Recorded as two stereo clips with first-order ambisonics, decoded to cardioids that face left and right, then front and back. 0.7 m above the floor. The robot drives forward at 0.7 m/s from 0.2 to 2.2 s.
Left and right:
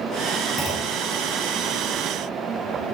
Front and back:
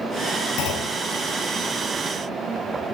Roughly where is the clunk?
Ahead.